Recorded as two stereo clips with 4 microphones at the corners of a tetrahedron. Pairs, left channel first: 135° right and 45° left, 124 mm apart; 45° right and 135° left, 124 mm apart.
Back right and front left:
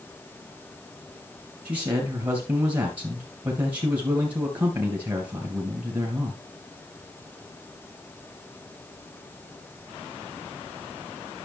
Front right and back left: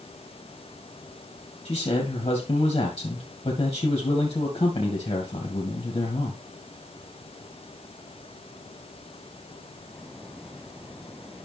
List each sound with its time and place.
1.6 s a man speaking: 5° right, 2.5 m